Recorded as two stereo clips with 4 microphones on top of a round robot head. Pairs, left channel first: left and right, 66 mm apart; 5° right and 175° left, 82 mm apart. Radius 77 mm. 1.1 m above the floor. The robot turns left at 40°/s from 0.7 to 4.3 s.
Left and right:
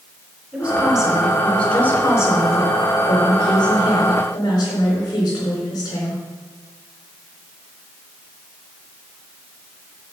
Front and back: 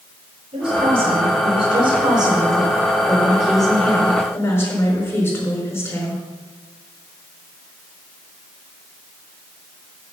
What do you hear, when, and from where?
0.5 s a woman speaking: 165° right, 4 m; by 6.2 s 50° left, 4 m